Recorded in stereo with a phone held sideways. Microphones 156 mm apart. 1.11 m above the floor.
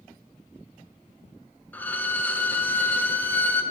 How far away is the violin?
About 0.7 m.